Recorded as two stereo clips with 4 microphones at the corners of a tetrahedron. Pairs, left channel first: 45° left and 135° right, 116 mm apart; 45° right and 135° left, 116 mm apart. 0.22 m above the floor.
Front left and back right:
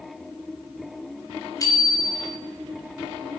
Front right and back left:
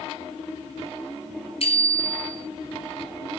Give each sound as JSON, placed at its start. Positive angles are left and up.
{"t": 1.6, "sound": "a bicycle bell", "azimuth_deg": -15, "distance_m": 2.5}